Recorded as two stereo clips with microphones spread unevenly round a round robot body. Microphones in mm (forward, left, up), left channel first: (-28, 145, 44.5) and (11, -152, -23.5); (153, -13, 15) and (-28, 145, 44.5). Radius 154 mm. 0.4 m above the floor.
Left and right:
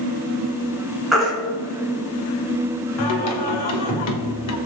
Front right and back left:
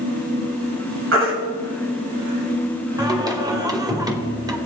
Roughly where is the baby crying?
Behind.